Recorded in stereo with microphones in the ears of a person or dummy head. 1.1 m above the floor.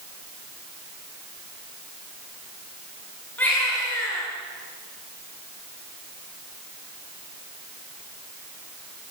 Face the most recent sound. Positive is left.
turn(degrees=10)  # may be behind; listen again after turning